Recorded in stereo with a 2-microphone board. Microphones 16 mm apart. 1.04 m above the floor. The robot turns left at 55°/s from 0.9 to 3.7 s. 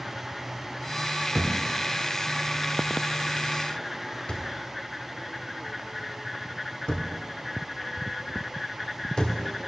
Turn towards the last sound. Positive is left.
turn(degrees=60)  # may be behind; listen again after turning